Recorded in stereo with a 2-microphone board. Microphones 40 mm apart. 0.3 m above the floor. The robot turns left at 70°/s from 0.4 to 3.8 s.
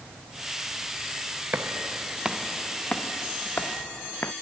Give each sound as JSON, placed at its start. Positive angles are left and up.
{"t": 1.5, "sound": "footsteps", "side_deg": -50}